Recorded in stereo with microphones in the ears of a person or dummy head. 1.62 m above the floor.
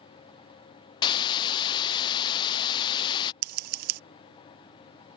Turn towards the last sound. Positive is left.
turn(degrees=-50)  # may be behind; listen again after turning